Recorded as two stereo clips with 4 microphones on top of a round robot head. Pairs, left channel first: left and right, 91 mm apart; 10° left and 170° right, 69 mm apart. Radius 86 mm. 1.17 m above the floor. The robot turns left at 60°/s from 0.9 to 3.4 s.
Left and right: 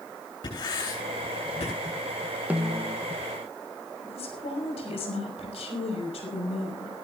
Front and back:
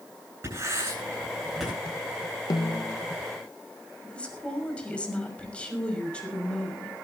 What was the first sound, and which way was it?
Writing, 140° left.